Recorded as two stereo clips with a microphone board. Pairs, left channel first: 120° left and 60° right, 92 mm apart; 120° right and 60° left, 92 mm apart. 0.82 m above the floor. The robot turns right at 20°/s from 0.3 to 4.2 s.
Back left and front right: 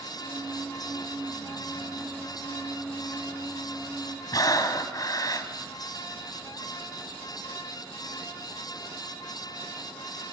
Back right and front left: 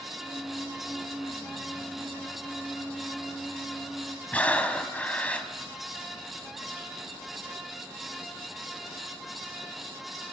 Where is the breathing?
165° left, 1.7 m.